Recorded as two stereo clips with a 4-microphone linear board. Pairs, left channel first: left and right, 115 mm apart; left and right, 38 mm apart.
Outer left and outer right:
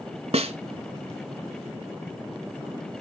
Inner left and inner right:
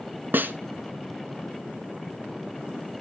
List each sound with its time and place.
0.3 s a snare drum: 60° right (ahead or behind), 0.7 m